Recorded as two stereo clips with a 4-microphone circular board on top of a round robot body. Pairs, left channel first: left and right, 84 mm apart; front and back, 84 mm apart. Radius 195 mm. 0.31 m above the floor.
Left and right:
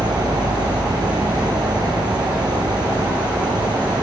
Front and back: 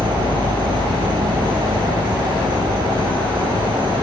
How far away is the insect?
About 8 m.